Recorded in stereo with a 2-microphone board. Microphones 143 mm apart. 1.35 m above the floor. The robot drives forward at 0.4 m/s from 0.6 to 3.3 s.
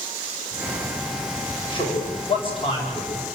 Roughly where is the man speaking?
Left.